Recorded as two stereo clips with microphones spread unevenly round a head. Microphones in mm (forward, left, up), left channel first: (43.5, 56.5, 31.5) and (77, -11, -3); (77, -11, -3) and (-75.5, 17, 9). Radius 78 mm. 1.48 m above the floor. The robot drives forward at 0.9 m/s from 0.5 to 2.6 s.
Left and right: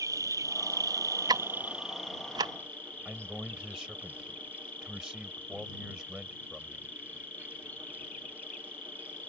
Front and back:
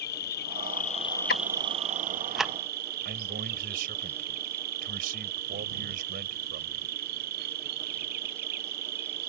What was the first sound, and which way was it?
An insect, 35° right.